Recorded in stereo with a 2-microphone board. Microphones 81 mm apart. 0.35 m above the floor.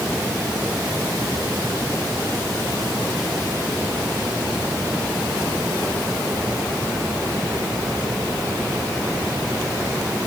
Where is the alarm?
No alarm in this recording.